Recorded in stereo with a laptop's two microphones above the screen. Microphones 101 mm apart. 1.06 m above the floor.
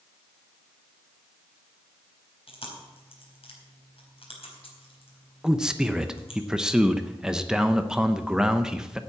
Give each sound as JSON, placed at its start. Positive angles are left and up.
{"t": 2.5, "sound": "chewing", "side_deg": 65, "distance_m": 4.0}
{"t": 5.4, "sound": "a man speaking", "side_deg": -5, "distance_m": 0.6}